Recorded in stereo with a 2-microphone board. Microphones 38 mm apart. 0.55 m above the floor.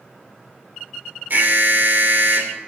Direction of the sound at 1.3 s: 55° right (ahead or behind).